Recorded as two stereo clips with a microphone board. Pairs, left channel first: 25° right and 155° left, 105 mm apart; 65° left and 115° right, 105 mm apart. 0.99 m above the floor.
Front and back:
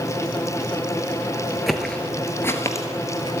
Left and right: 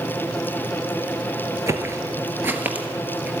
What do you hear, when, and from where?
1.7 s footsteps: 115° right, 1.0 m; by 3.3 s 40° right, 1.3 m